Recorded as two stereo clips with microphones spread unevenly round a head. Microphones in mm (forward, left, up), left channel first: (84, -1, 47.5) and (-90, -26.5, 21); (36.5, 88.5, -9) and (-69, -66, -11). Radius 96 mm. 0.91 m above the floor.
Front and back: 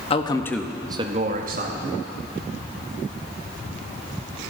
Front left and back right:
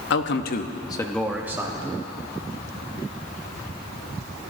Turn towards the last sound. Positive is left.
turn(degrees=170)